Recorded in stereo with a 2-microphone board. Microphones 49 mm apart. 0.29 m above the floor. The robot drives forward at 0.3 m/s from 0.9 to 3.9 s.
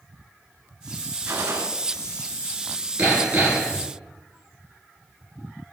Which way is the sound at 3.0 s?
40° right (ahead or behind).